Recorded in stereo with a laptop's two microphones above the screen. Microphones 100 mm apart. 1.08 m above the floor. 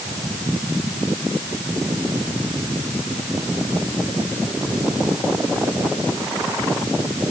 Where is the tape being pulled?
No tape being pulled in this recording.